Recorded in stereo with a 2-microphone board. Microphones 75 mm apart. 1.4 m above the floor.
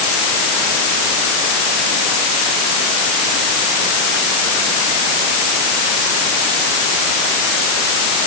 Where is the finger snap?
I don't hear a finger snap.